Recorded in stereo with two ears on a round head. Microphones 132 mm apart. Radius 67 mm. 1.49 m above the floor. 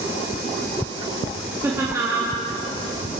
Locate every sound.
1.6 s laughter: 15° right (ahead or behind), 2.5 m